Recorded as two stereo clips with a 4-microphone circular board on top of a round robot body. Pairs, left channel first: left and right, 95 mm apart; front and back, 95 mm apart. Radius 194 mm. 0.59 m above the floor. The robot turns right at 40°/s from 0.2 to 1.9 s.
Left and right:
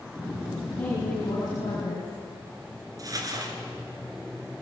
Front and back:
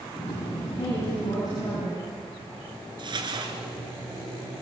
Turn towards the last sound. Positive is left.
turn(degrees=-145)